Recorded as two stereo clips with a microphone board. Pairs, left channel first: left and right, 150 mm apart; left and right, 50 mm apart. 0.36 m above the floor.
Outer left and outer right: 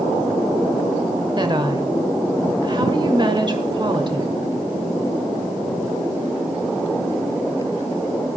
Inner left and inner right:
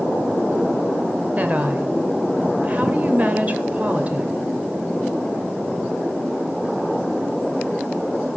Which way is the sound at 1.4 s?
30° right (ahead or behind).